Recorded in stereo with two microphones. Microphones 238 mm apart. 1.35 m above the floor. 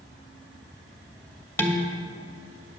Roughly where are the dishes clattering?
Centre.